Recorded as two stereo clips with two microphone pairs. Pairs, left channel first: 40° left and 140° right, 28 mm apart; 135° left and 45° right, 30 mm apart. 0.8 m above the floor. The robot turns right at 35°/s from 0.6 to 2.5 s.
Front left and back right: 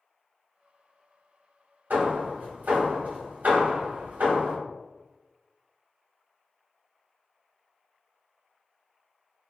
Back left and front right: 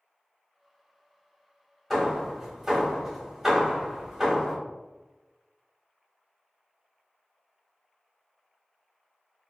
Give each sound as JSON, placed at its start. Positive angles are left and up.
{"t": 1.9, "sound": "hammering", "azimuth_deg": -140, "distance_m": 1.9}